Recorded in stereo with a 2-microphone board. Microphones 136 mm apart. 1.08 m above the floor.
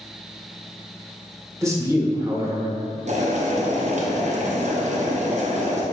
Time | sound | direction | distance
1.6 | a man speaking | 20° right (ahead or behind) | 1.0 m
3.1 | boiling | 60° right (ahead or behind) | 0.8 m